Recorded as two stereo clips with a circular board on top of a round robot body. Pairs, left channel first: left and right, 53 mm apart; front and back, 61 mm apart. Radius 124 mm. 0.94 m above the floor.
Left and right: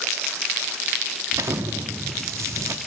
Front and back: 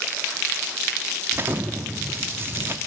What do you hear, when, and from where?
1.3 s an explosion: 125° right, 1.0 m